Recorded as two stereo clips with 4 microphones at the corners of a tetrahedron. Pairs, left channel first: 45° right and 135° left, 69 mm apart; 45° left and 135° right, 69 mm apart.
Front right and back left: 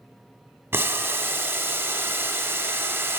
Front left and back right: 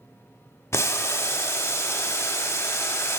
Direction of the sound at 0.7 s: 90° left.